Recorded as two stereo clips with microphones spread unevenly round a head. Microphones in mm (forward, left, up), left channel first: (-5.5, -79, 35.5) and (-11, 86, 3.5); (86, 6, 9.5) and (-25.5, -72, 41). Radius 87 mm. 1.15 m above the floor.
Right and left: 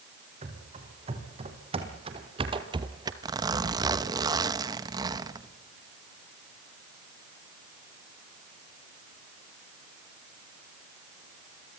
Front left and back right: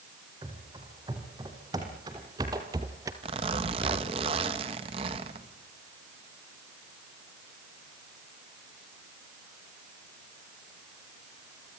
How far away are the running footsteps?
About 5 m.